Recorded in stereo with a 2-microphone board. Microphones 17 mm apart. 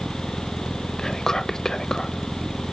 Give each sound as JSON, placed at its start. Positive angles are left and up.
{"t": 1.0, "sound": "whispering", "side_deg": 35, "distance_m": 1.1}